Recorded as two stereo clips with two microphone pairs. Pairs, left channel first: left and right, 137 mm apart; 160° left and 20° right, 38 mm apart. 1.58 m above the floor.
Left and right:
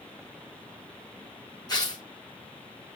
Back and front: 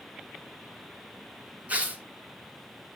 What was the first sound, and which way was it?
Tearing paper, 30° left.